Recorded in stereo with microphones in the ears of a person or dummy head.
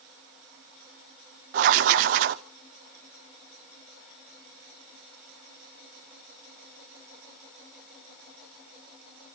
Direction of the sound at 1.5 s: 50° right (ahead or behind).